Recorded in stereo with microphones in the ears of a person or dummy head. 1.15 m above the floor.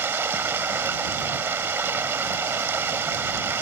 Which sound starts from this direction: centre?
Running water, at 0.0 s.